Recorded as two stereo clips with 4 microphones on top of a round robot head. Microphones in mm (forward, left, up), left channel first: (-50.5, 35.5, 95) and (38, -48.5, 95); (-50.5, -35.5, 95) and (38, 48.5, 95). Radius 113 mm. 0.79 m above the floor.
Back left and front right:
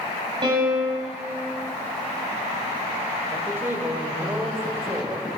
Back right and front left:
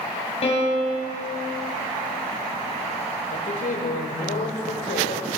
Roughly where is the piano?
Right.